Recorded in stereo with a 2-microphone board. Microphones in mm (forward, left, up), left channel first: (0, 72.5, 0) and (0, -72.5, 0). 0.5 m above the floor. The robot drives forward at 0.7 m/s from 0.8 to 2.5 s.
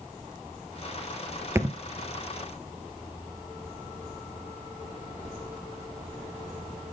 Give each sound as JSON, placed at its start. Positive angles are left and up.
{"t": 1.6, "sound": "a thud", "side_deg": -20, "distance_m": 1.1}